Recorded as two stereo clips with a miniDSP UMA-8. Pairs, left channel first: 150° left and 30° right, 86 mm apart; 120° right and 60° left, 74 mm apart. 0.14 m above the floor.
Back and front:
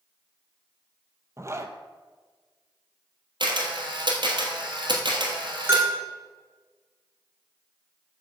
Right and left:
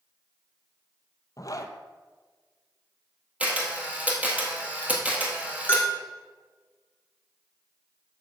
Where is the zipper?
85° right, 0.6 m.